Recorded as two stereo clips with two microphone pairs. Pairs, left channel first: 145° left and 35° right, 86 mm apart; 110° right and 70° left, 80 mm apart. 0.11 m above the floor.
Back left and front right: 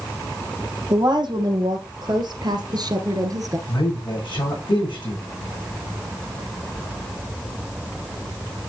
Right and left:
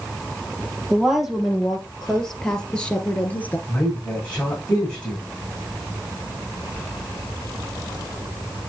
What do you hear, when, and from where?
0.9 s a woman speaking: 15° right, 2.5 m; by 3.6 s 50° right, 1.5 m
3.7 s a man speaking: 175° left, 6.5 m